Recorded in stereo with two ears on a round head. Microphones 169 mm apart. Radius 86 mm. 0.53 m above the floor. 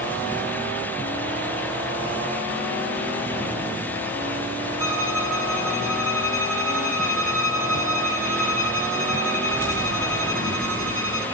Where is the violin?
15° right (ahead or behind), 8.5 m.